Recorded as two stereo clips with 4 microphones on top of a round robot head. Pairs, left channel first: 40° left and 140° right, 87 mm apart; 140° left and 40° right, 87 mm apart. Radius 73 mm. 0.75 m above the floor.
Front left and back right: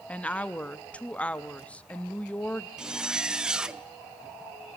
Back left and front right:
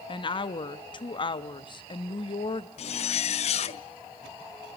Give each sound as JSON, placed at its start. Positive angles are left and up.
{"t": 0.1, "sound": "a woman speaking", "azimuth_deg": 120, "distance_m": 0.9}
{"t": 2.8, "sound": "a zipper", "azimuth_deg": 140, "distance_m": 0.5}